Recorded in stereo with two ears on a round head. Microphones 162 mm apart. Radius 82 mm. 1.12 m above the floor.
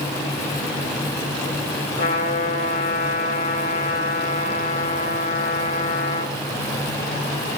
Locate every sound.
2.0 s a trumpet: 45° left (ahead or behind), 2 m